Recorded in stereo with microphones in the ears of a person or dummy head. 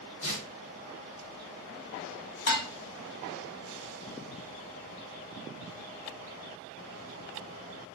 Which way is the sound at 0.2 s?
65° left (ahead or behind).